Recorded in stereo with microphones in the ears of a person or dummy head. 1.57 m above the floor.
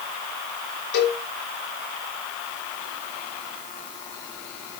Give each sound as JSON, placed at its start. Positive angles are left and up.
{"t": 0.9, "sound": "a cowbell", "side_deg": 75, "distance_m": 7.0}